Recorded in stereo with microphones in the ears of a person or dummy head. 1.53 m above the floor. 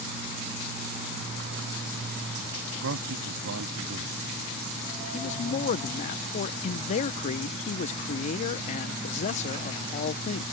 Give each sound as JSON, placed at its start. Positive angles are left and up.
{"t": 2.7, "sound": "a man speaking", "side_deg": -70}
{"t": 5.1, "sound": "a man speaking", "side_deg": 40}